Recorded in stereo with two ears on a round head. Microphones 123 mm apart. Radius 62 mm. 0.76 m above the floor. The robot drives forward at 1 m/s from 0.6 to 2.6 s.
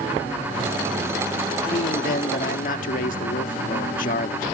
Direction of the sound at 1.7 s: 55° left (ahead or behind).